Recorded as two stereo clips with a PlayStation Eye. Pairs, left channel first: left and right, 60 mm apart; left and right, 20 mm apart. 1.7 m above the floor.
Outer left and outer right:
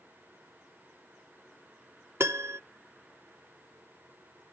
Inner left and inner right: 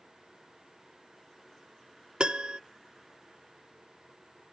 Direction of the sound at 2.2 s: 50° right (ahead or behind).